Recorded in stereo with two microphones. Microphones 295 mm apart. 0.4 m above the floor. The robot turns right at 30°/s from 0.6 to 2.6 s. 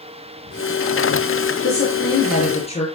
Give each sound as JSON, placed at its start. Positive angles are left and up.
{"t": 1.6, "sound": "a woman speaking", "side_deg": 50, "distance_m": 6.0}